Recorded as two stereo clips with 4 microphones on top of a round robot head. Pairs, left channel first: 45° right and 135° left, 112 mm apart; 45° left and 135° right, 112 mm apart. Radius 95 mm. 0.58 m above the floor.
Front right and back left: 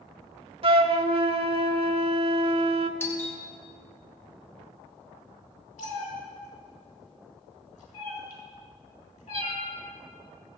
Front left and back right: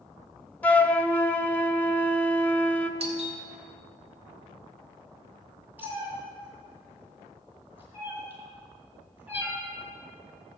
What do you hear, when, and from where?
0.6 s a flute: 120° left, 0.9 m
3.0 s a doorbell: 115° right, 2.5 m
5.8 s a cat meowing: 60° right, 3.5 m